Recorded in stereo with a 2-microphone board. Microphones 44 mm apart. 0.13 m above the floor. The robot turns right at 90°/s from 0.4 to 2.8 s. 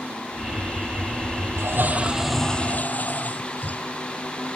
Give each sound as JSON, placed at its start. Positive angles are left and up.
{"t": 1.6, "sound": "a toilet flushing", "azimuth_deg": -70}